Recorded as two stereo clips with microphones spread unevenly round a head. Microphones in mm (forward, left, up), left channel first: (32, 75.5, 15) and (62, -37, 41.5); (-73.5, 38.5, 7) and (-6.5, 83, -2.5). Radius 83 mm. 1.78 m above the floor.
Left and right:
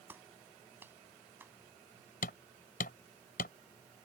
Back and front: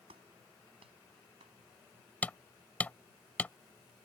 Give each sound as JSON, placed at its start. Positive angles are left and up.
{"t": 0.1, "sound": "a clap", "azimuth_deg": -5}
{"t": 2.2, "sound": "hammering", "azimuth_deg": 145}